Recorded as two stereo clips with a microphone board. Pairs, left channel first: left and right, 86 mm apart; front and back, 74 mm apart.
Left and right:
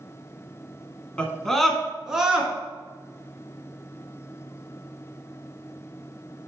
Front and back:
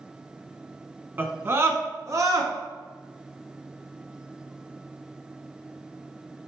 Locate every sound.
1.2 s a scream: 155° left, 1.1 m; by 2.5 s 165° right, 1.6 m